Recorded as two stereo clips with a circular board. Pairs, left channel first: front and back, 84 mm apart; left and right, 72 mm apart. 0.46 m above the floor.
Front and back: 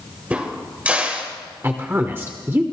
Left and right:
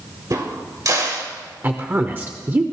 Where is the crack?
110° right, 1.8 m.